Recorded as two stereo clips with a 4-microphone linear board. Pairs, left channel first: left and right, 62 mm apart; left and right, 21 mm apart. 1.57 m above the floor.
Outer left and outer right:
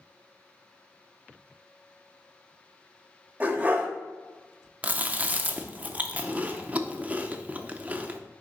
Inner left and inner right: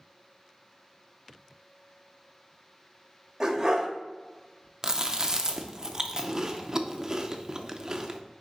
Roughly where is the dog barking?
Right.